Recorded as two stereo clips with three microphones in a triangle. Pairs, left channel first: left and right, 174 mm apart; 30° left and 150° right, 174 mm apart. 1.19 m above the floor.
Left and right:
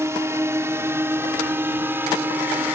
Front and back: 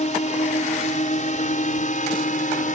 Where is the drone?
15° right; by 2.8 s 10° right.